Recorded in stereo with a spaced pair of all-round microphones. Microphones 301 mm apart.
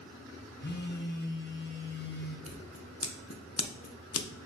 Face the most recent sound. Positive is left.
turn(degrees=55)  # may be behind; listen again after turning